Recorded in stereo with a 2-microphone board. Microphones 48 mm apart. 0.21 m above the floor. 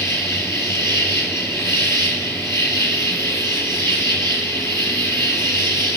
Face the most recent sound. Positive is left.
turn(degrees=75)  # may be behind; listen again after turning